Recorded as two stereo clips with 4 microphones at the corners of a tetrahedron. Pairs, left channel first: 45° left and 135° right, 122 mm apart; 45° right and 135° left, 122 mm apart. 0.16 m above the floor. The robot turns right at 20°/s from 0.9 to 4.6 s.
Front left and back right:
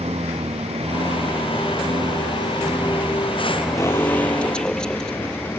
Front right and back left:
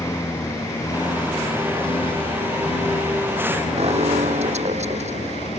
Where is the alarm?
110° left; by 5.5 s 130° left.